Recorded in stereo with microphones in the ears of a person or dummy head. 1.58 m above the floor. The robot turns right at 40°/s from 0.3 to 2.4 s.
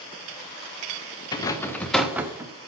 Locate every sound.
1.3 s a rattle: 150° left, 0.6 m; by 2.5 s 165° right, 0.6 m